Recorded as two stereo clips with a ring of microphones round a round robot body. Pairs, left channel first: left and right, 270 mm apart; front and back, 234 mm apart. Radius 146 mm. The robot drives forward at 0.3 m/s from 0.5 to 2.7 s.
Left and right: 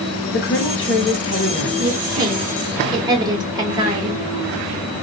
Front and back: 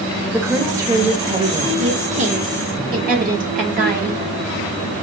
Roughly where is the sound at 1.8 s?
Behind right.